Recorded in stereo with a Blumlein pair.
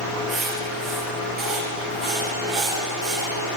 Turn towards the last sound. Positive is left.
turn(degrees=-15)